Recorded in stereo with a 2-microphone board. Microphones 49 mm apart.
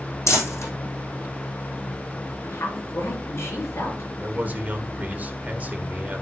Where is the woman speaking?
65° left (ahead or behind), 5 m.